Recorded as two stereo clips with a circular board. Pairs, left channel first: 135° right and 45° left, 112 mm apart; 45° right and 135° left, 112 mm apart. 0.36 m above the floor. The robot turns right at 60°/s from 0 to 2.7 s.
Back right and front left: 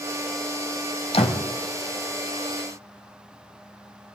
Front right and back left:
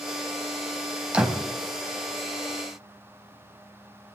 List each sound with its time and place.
1.1 s a door slam: 145° right, 1.8 m; by 1.5 s 130° right, 1.8 m